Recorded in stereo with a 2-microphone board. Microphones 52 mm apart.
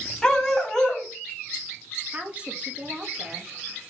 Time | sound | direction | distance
0.2 | a dog barking | 10° left (ahead or behind) | 3.5 m
2.1 | a woman speaking | 25° right (ahead or behind) | 2 m